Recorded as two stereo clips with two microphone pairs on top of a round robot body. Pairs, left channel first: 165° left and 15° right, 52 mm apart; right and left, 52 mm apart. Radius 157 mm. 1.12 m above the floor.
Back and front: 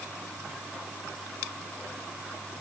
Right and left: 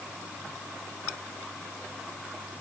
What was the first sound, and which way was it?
Only background noise.